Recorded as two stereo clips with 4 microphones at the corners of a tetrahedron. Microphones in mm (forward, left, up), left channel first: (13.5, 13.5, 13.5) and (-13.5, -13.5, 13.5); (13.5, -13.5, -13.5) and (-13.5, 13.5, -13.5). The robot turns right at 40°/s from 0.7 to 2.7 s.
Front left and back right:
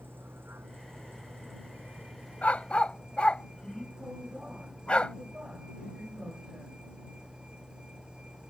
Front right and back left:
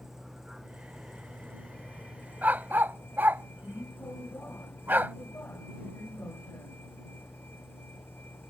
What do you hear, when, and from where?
0.0 s a vehicle: 150° right; by 8.5 s 70° right
2.4 s a dog barking: 95° left; by 5.2 s 105° left